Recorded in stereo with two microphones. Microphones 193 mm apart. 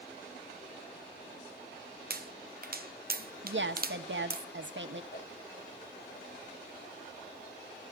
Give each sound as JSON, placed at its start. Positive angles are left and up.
{"t": 2.1, "sound": "a pop", "side_deg": -50, "distance_m": 0.5}
{"t": 3.4, "sound": "a woman speaking", "side_deg": -75, "distance_m": 1.4}
{"t": 5.1, "sound": "a whoosh", "side_deg": 60, "distance_m": 5.5}